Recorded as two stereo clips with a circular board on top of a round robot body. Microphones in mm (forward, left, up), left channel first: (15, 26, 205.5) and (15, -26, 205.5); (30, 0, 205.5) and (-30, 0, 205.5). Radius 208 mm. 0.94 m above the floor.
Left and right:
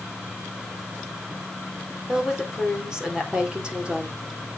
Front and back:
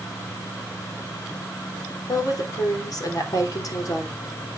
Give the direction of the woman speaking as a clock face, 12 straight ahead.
12 o'clock.